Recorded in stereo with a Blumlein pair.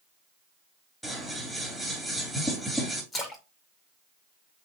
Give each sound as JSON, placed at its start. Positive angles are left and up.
{"t": 1.0, "sound": "scissors", "azimuth_deg": 5, "distance_m": 2.0}
{"t": 3.1, "sound": "a splash", "azimuth_deg": 20, "distance_m": 1.2}